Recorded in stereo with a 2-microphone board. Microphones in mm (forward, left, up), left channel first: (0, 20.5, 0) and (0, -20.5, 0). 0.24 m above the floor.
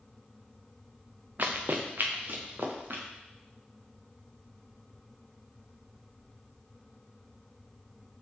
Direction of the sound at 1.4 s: 55° right (ahead or behind).